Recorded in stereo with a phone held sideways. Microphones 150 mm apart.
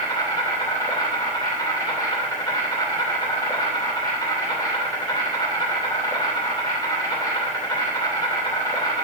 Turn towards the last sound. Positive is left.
turn(degrees=30)  # may be behind; listen again after turning